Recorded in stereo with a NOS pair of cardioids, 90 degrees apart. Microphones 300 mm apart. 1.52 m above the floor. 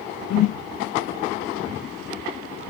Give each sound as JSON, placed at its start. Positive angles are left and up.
{"t": 0.3, "sound": "a whoosh", "azimuth_deg": 65, "distance_m": 0.6}